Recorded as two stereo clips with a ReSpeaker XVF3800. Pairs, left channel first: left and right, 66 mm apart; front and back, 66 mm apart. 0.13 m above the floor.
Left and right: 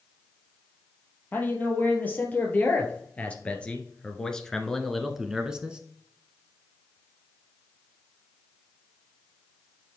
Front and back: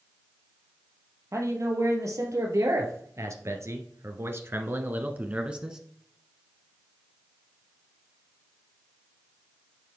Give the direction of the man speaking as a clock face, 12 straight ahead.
7 o'clock.